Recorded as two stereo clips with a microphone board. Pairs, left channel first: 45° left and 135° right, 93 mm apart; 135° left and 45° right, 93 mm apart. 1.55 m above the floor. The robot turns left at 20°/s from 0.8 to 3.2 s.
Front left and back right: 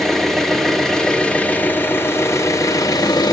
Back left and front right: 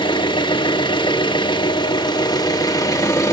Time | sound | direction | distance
0.0 | an engine running | 135° left | 1.5 m